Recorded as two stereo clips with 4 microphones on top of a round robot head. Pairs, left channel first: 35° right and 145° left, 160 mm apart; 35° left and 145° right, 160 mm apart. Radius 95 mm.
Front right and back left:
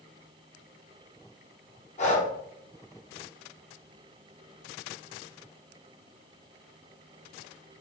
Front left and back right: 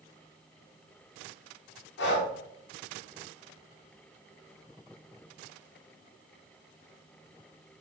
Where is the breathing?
15° left, 1.0 m.